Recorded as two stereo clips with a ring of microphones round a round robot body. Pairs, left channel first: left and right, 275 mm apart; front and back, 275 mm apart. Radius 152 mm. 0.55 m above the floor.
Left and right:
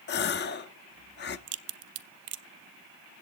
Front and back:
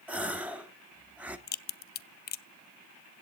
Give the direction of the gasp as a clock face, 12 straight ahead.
9 o'clock.